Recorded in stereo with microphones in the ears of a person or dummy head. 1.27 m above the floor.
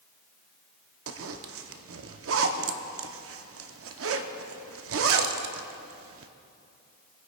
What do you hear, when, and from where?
1.1 s a zipper: 60° right (ahead or behind), 0.6 m